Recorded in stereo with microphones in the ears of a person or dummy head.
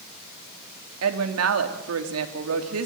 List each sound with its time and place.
1.0 s a woman speaking: 80° right, 3 m